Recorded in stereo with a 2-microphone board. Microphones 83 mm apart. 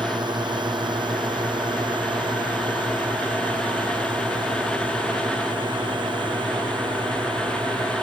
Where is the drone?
65° right (ahead or behind); by 8.0 s 70° right (ahead or behind).